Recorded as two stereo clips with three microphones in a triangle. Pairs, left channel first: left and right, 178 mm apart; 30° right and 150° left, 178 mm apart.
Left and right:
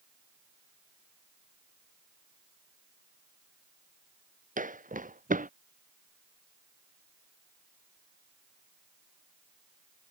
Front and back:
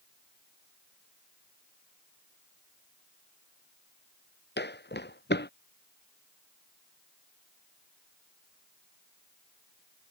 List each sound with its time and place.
4.6 s footsteps: 45° right